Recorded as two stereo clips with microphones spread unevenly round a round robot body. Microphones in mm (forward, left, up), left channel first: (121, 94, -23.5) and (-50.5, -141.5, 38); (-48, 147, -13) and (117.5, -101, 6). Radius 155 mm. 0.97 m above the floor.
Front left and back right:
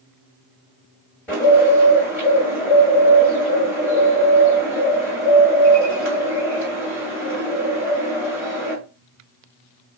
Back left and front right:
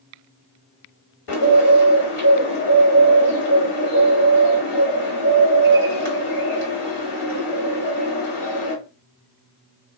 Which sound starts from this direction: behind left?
A bird, at 1.3 s.